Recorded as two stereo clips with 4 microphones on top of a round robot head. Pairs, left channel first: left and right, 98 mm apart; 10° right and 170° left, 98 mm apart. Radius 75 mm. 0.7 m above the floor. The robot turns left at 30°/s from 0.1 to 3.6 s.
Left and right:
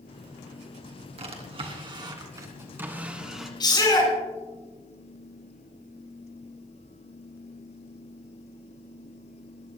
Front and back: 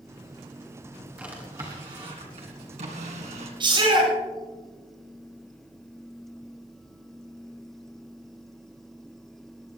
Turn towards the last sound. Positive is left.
turn(degrees=135)